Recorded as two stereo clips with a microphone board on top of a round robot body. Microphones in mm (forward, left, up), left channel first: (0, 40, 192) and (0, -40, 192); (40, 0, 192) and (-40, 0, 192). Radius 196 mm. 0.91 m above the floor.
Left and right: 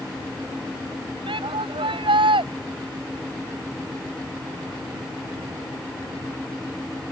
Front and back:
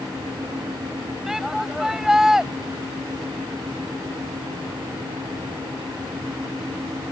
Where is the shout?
95° right.